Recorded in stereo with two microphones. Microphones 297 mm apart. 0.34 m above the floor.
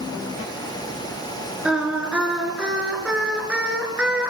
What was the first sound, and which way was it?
Singing, 5° right (ahead or behind).